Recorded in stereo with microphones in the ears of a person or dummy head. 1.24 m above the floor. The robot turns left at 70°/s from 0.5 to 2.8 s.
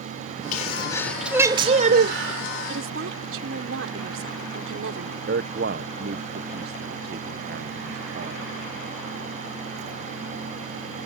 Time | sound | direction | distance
0.5 | a sneeze | 45° left | ?
2.7 | a woman speaking | 70° right (ahead or behind) | ?
5.3 | a man speaking | 50° right (ahead or behind) | ?